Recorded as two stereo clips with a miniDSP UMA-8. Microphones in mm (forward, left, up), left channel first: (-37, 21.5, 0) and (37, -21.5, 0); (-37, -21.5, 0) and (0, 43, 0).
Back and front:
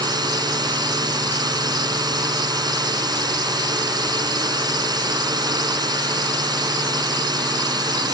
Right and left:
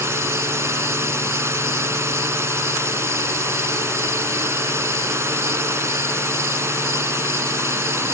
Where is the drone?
5° left.